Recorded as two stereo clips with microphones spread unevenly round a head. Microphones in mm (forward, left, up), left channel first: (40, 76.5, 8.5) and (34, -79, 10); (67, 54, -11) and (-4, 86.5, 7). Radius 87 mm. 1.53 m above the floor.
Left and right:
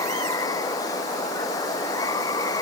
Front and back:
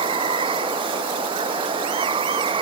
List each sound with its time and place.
0.0 s running water: 160° left